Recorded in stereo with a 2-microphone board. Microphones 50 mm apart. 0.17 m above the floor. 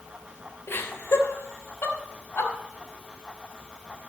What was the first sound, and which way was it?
Laughter, 55° left (ahead or behind).